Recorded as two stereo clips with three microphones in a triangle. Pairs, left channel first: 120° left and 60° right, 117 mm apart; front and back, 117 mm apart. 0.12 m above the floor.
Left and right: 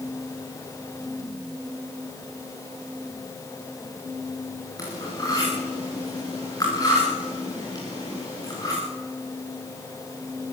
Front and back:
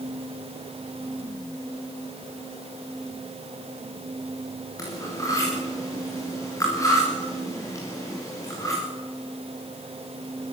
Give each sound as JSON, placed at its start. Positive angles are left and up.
{"t": 4.8, "sound": "cutlery clinking", "azimuth_deg": 60, "distance_m": 9.0}